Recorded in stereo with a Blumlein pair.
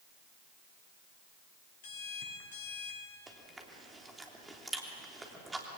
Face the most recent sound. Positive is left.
turn(degrees=-10)